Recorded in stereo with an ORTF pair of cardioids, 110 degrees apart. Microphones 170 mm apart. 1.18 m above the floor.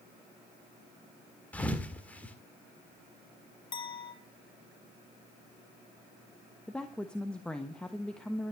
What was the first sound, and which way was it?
A thud, 10° left.